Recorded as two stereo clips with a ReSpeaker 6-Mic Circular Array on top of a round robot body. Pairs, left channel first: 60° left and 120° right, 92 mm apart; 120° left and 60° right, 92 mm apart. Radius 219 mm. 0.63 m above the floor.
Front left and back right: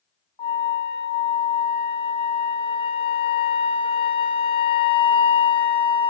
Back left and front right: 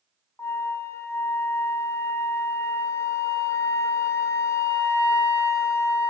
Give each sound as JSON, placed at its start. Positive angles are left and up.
{"t": 0.4, "sound": "a flute", "azimuth_deg": 60, "distance_m": 0.8}